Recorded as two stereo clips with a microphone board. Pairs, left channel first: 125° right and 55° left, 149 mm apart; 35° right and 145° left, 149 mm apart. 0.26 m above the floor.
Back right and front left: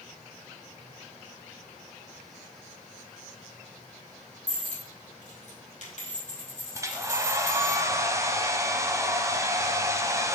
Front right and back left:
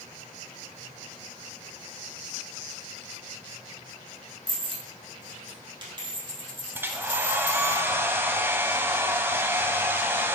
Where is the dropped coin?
160° right, 2.5 m.